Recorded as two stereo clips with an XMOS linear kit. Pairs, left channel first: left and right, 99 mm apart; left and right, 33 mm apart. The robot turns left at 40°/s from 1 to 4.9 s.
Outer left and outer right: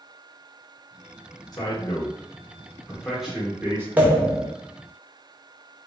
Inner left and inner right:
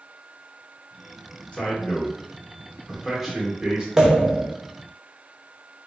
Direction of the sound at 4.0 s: 15° right (ahead or behind).